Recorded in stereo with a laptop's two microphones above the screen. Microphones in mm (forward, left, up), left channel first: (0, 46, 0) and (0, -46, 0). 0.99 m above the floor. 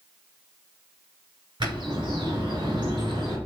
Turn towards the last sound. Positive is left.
turn(degrees=-55)  # may be behind; listen again after turning